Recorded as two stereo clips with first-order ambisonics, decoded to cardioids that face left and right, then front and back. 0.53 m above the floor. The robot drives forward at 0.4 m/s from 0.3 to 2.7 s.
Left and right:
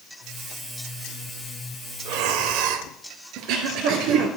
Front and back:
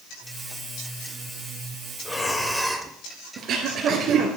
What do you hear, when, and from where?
2.0 s breathing: 75° right, 0.9 m; by 2.9 s 95° right, 0.9 m
3.4 s throat clearing: 125° right, 2 m